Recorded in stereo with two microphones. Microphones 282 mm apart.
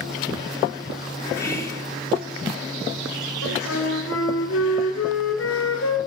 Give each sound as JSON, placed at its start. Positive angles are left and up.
{"t": 1.4, "sound": "whispering", "side_deg": 10, "distance_m": 1.4}
{"t": 3.4, "sound": "a flute", "side_deg": 55, "distance_m": 1.1}